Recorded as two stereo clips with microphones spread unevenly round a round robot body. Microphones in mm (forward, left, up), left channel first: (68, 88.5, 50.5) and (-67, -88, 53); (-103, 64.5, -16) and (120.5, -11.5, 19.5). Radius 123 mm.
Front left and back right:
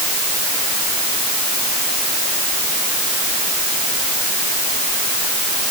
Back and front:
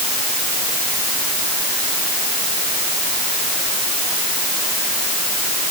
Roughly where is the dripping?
I don't hear dripping.